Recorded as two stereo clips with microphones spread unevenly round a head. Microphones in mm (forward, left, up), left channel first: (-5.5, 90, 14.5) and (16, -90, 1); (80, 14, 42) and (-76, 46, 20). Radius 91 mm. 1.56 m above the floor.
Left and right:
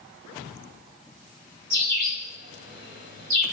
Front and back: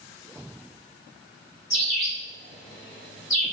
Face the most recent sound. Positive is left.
turn(degrees=-75)